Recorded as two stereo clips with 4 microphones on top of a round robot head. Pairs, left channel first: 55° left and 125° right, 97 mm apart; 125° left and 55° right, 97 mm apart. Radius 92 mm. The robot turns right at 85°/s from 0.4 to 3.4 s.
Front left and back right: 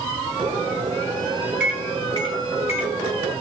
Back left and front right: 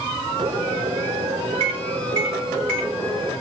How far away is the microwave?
About 1.9 m.